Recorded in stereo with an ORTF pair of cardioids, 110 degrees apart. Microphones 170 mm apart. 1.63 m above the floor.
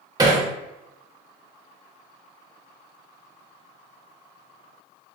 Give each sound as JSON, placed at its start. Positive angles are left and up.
{"t": 0.2, "sound": "hammering", "azimuth_deg": -25, "distance_m": 0.9}